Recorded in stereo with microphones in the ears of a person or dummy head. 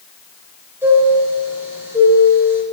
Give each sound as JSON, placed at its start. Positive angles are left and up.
{"t": 0.8, "sound": "a chime", "side_deg": -10, "distance_m": 3.0}